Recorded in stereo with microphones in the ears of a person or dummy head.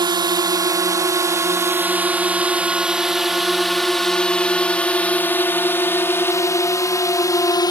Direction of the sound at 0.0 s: 20° right (ahead or behind).